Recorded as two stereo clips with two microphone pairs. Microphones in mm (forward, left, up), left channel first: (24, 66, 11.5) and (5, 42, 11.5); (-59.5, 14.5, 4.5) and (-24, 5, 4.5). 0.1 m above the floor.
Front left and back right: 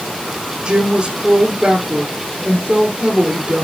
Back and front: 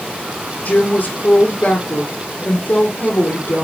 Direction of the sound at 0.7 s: 170° right.